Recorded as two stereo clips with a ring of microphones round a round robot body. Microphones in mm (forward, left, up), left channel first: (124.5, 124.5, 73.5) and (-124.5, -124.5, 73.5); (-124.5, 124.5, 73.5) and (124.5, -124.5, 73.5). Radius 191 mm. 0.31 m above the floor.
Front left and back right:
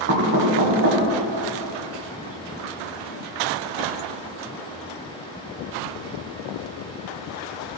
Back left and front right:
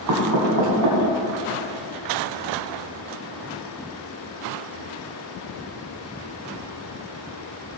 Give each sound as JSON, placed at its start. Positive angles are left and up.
{"t": 0.1, "sound": "knocking", "azimuth_deg": -80, "distance_m": 2.5}